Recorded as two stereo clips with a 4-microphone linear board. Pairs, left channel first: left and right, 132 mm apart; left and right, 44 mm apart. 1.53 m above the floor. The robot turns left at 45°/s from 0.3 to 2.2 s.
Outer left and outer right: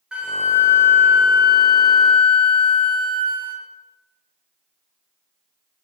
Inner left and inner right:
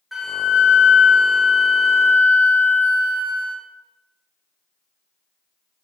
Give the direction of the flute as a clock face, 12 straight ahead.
12 o'clock.